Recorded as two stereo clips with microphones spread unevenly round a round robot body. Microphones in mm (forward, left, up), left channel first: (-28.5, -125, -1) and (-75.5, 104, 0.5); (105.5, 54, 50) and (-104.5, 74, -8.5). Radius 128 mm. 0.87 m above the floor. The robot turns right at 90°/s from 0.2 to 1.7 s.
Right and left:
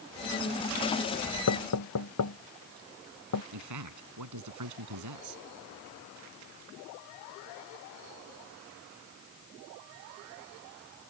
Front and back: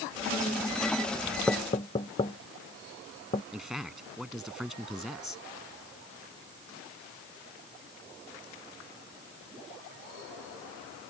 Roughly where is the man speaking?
Left.